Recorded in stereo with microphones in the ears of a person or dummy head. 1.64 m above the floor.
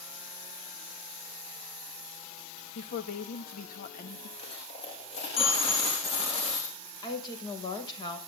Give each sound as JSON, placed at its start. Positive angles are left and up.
{"t": 2.8, "sound": "a woman speaking", "side_deg": 40, "distance_m": 2.5}
{"t": 4.4, "sound": "a dropped coin", "side_deg": 25, "distance_m": 6.0}
{"t": 7.0, "sound": "a woman speaking", "side_deg": 30, "distance_m": 7.0}